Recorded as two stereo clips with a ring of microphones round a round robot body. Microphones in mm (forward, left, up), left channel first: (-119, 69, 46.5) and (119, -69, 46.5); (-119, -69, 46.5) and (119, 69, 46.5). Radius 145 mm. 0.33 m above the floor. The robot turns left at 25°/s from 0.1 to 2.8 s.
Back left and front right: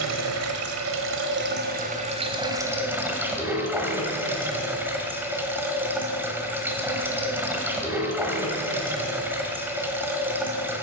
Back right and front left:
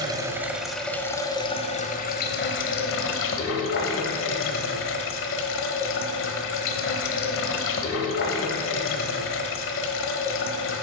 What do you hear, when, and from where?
0.0 s running water: 45° right, 1.1 m; by 10.8 s 110° right, 1.1 m